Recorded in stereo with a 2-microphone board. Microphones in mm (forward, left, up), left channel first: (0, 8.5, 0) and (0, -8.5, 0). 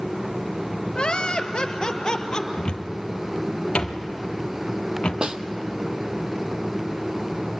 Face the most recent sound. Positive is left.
turn(degrees=-55)  # may be behind; listen again after turning